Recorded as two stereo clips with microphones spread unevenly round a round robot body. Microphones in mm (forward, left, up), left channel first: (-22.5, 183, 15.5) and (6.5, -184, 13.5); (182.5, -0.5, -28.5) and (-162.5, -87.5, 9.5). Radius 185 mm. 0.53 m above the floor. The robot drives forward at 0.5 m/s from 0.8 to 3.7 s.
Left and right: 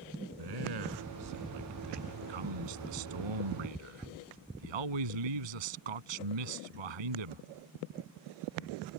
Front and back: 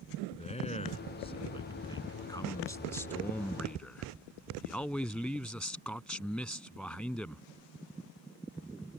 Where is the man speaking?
60° right; by 7.5 s 75° right.